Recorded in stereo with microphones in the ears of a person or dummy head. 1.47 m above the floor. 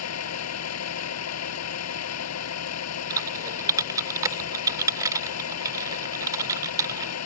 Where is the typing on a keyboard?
20° right (ahead or behind).